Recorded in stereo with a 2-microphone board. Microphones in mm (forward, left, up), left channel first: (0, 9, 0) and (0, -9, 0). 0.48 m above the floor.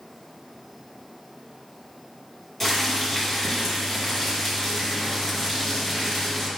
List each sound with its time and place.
2.6 s boiling: 10° left (ahead or behind), 2.5 m